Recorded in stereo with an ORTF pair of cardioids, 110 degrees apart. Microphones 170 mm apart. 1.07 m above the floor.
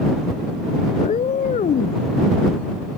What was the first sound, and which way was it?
A cat meowing, 40° left.